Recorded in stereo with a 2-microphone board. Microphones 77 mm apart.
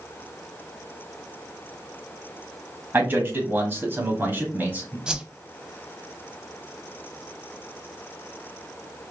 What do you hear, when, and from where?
2.9 s a man speaking: 25° right (ahead or behind), 1.5 m; by 5.0 s 20° right (ahead or behind), 1.5 m
5.1 s a whoosh: 10° right (ahead or behind), 0.7 m